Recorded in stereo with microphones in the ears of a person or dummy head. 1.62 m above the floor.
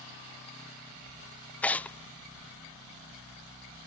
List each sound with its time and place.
1.6 s tearing paper: 10° left (ahead or behind)